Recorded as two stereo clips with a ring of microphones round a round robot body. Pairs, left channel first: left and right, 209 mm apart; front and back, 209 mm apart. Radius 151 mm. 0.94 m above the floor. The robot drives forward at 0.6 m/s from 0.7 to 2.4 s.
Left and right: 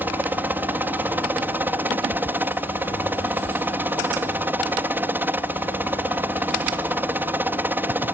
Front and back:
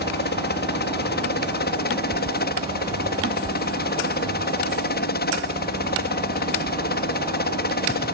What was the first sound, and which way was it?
A helicopter, 10° right.